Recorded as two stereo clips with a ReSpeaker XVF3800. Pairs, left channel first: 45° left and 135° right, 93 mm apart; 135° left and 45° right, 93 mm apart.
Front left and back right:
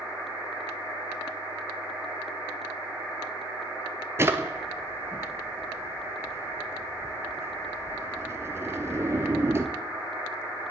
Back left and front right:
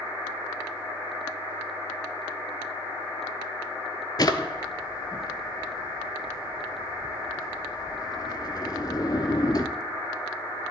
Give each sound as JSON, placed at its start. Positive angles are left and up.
{"t": 4.2, "sound": "a drawer", "azimuth_deg": 170, "distance_m": 0.5}